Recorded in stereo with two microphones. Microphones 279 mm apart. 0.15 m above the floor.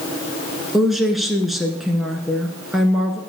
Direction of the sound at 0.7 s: Centre (ahead or behind).